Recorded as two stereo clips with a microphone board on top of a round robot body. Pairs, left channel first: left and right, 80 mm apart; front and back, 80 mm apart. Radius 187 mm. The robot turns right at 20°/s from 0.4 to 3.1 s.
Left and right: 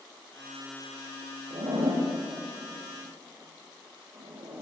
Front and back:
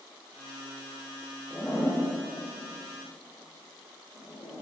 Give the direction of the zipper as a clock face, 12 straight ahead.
2 o'clock.